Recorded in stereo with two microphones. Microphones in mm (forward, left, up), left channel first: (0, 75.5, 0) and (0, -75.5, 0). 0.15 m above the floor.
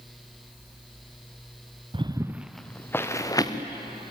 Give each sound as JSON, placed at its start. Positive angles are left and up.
{"t": 1.9, "sound": "footsteps", "side_deg": -35, "distance_m": 1.0}